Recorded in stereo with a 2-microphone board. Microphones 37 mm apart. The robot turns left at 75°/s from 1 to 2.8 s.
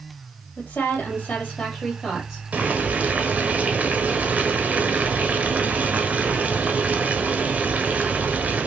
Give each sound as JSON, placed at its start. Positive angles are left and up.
{"t": 0.6, "sound": "a woman speaking", "azimuth_deg": 90, "distance_m": 3.0}
{"t": 2.5, "sound": "boiling", "side_deg": -40, "distance_m": 1.0}